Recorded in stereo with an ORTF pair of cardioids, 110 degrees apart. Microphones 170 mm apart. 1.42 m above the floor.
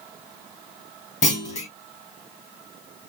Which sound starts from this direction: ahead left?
A clunk, at 1.2 s.